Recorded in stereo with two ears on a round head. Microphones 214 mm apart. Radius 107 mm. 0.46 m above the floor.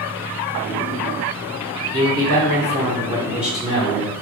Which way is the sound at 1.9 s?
40° right (ahead or behind).